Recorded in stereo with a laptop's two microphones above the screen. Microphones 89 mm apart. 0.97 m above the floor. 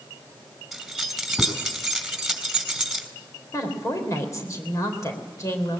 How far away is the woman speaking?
About 3.5 m.